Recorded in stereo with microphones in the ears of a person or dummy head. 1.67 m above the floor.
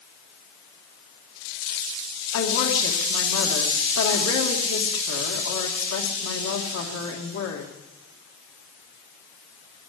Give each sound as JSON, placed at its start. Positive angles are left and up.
{"t": 2.3, "sound": "a woman speaking", "side_deg": 80, "distance_m": 2.5}